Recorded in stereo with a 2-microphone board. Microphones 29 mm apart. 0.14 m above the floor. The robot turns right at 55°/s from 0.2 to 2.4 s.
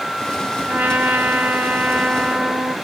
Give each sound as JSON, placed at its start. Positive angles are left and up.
{"t": 0.7, "sound": "a trumpet", "azimuth_deg": -115, "distance_m": 1.3}